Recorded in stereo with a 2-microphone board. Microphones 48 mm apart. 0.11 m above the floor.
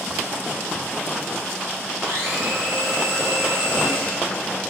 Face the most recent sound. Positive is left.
turn(degrees=-60)  # may be behind; listen again after turning